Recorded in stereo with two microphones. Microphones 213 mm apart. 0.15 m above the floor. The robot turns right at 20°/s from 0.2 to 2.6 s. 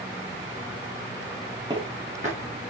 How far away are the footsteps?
About 9 m.